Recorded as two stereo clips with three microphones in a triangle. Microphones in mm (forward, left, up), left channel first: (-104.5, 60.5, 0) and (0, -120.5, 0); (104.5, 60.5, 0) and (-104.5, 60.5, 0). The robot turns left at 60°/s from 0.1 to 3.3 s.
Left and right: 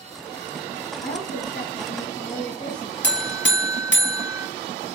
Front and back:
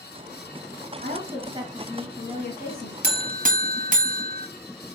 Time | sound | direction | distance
1.0 | a woman speaking | 160° left | 1.7 m
3.0 | a buzzer | 150° left | 0.9 m